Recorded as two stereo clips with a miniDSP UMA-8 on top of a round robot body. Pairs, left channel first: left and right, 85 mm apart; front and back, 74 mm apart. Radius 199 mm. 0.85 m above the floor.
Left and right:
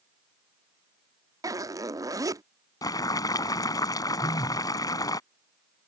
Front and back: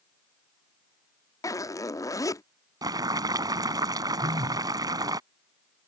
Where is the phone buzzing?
140° left.